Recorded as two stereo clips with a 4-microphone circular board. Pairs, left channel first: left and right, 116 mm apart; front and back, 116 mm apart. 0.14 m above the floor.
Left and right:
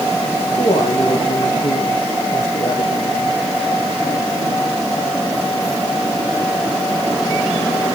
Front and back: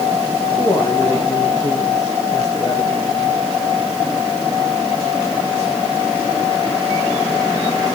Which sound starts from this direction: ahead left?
A man speaking, at 0.6 s.